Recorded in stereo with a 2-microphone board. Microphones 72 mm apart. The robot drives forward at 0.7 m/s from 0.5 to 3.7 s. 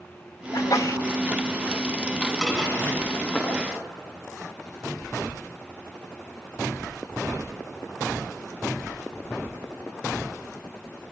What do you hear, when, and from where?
0.5 s a sneeze: 60° left (ahead or behind), 1.5 m; by 1.0 s 50° left (ahead or behind), 1.7 m
2.4 s dishes clattering: 5° left (ahead or behind), 6.5 m